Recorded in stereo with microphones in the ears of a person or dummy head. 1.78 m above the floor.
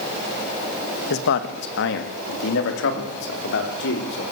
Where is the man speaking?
70° left (ahead or behind), 2 m; by 4.2 s 75° left (ahead or behind), 6 m.